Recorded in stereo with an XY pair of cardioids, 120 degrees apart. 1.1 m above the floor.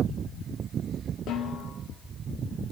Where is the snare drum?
70° left, 2.5 m.